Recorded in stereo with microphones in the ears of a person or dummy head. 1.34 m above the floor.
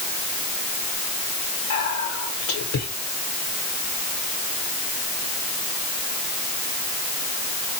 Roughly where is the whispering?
Left.